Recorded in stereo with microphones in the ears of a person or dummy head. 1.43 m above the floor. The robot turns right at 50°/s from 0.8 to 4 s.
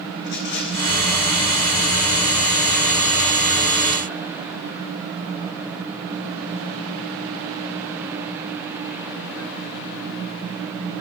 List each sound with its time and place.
0.2 s a rattle: 55° left (ahead or behind), 1.8 m; by 1.0 s 45° left (ahead or behind), 1.8 m